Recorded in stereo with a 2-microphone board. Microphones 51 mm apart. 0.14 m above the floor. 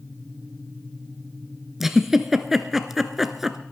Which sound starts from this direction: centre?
A giggle, at 1.8 s.